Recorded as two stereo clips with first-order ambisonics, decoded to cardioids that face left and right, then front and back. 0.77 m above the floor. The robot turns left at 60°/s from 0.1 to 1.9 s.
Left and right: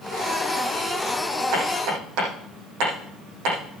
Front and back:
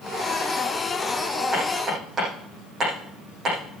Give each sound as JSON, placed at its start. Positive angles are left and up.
{"t": 1.5, "sound": "hammering", "azimuth_deg": -85, "distance_m": 8.5}